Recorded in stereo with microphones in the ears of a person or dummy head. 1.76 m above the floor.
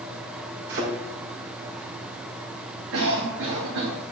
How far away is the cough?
About 3 m.